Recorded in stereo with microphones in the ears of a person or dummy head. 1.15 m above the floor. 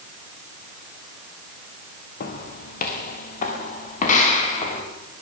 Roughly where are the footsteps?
Left.